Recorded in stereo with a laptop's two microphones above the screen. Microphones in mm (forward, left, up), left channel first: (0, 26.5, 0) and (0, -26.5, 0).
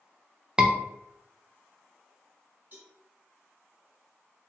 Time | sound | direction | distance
0.6 | a scream | 15° right (ahead or behind) | 0.6 m
2.7 | a cowbell | 35° right (ahead or behind) | 2.0 m